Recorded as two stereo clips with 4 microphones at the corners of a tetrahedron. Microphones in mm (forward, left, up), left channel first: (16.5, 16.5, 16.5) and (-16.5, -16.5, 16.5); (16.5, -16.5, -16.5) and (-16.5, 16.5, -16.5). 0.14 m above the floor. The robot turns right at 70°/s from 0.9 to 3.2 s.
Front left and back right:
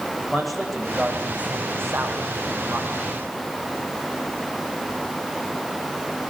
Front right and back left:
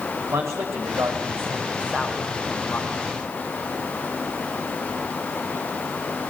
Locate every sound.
0.3 s a man speaking: 135° left, 8 m; by 2.9 s 85° right, 8 m